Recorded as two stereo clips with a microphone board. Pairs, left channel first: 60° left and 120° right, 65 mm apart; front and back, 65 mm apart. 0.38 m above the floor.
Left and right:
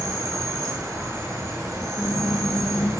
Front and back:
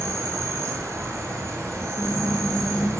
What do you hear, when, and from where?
0.0 s an insect: 145° right, 1.6 m
2.0 s a squeak: 95° left, 0.8 m